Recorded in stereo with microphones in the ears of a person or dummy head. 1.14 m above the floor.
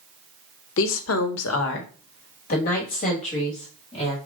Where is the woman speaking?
65° left (ahead or behind), 0.8 m; by 4.2 s 35° left (ahead or behind), 2 m.